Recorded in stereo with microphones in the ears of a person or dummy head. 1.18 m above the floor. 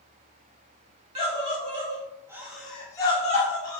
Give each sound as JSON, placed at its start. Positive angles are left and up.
{"t": 1.1, "sound": "a scream", "side_deg": -35, "distance_m": 1.1}